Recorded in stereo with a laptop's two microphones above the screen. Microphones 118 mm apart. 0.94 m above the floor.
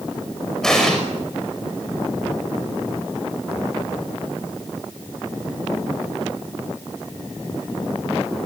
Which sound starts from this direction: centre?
An explosion, at 0.6 s.